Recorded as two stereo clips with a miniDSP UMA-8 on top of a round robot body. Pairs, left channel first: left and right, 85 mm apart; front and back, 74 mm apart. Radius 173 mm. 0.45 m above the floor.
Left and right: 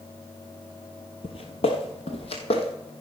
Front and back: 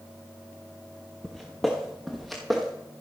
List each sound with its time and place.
1.2 s footsteps: 85° left, 0.5 m; by 2.7 s 90° left, 1.3 m